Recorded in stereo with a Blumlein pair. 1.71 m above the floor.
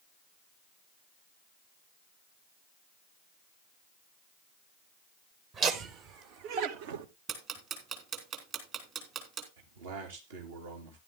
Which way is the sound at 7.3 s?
30° right.